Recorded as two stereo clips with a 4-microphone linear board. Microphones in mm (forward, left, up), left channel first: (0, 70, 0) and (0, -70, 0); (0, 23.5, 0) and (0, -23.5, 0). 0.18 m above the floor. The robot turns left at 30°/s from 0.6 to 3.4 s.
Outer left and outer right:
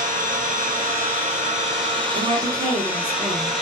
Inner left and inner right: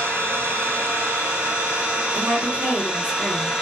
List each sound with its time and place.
0.0 s an engine running: 95° right, 1.4 m; by 3.6 s straight behind, 1.4 m
2.1 s a woman speaking: 120° right, 2.0 m; by 3.5 s 160° right, 2.0 m